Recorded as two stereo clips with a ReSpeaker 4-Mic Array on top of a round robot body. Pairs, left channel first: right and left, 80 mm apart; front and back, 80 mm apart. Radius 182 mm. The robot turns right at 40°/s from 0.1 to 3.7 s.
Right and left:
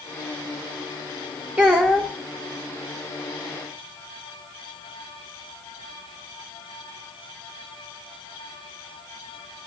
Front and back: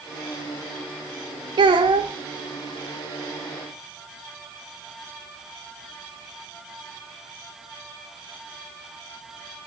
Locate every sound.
1.6 s a child speaking: 165° left, 0.8 m; by 2.1 s 175° right, 0.8 m